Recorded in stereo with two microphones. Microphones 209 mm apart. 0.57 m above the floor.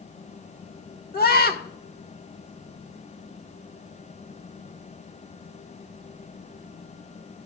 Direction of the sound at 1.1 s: 50° left (ahead or behind).